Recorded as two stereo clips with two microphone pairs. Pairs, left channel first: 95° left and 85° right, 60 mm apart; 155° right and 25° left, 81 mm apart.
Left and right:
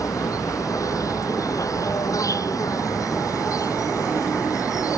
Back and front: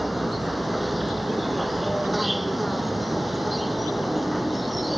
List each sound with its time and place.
0.0 s an insect: 115° left